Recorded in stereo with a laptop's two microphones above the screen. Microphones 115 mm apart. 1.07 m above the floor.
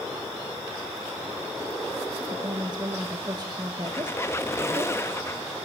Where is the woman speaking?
40° right (ahead or behind), 1.4 m.